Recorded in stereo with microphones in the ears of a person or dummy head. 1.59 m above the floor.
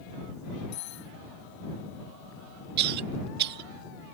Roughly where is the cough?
Right.